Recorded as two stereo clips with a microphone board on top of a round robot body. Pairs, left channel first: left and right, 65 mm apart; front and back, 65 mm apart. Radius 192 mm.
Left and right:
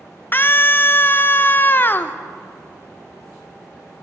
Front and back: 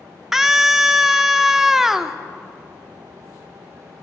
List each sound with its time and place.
0.3 s a scream: 100° left, 0.8 m